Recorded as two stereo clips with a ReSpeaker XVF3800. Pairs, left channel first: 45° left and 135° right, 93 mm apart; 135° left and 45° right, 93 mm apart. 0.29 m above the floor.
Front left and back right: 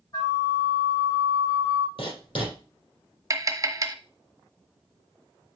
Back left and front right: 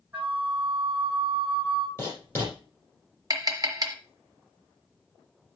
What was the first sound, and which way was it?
A flute, 20° left.